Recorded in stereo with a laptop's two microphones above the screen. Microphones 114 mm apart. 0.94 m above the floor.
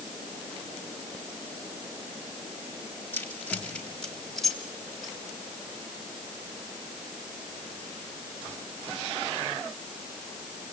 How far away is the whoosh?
No whoosh in this recording.